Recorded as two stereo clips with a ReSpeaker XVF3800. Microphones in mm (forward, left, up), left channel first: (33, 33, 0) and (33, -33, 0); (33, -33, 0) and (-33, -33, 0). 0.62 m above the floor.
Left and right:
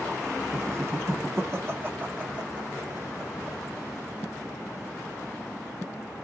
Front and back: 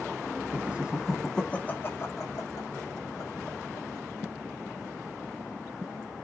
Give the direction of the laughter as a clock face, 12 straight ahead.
4 o'clock.